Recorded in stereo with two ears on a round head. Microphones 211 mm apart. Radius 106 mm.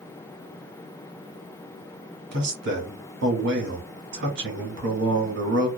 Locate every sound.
2.3 s a man speaking: 50° right (ahead or behind), 1.3 m